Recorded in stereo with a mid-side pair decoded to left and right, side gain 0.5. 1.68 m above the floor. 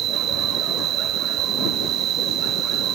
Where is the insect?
65° right.